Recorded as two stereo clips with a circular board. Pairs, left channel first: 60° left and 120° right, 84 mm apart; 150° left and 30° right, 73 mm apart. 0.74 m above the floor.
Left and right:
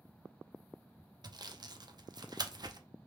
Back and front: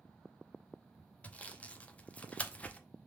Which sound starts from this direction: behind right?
Sawing, at 1.2 s.